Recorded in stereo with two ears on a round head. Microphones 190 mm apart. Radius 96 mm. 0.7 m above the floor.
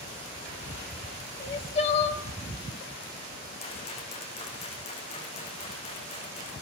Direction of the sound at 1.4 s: 30° left (ahead or behind).